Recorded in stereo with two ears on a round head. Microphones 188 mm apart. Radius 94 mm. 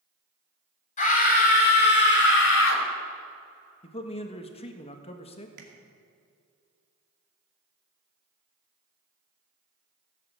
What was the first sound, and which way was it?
A scream, 40° left (ahead or behind).